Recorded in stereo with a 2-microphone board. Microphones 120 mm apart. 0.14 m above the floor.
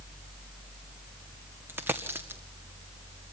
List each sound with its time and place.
1.7 s a dropped coin: 20° right (ahead or behind), 2 m